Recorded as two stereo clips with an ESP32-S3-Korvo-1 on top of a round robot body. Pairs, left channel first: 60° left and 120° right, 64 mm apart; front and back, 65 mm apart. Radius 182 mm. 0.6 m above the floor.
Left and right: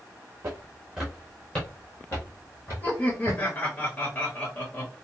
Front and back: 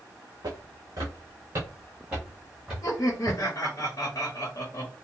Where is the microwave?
I don't hear a microwave.